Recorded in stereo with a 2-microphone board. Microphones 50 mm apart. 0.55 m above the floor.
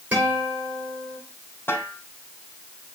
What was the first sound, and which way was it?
A guitar, 30° right (ahead or behind).